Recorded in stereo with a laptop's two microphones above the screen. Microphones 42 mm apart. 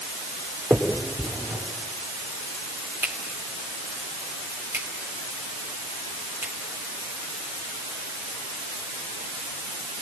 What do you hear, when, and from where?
0.7 s a finger snap: 75° right (ahead or behind), 3.5 m